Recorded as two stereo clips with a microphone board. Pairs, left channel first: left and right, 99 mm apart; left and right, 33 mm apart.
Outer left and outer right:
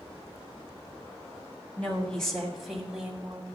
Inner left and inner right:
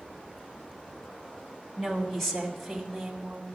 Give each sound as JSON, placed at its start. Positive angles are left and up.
{"t": 1.8, "sound": "a woman speaking", "side_deg": 10, "distance_m": 2.5}